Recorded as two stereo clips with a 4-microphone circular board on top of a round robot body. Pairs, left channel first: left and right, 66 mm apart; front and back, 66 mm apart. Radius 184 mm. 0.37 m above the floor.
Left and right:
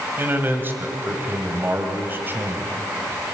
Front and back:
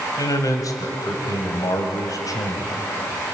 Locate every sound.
0.2 s a man speaking: 30° right, 2.5 m